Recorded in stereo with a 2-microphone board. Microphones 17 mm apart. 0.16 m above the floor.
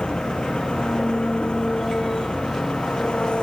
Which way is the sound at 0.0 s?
80° left.